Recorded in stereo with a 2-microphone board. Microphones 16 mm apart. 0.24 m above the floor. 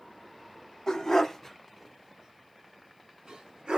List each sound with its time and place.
0.9 s a dog barking: 40° left (ahead or behind), 0.9 m; by 3.8 s 75° right (ahead or behind), 1.4 m